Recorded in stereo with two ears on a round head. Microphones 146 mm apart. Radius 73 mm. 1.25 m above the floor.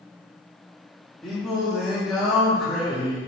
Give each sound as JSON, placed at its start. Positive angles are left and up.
{"t": 1.2, "sound": "singing", "side_deg": 0, "distance_m": 0.7}